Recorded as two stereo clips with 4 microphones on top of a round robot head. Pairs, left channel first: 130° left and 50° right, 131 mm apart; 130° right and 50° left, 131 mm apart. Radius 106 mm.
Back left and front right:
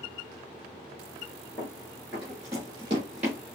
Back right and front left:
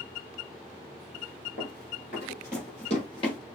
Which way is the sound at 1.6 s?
145° right.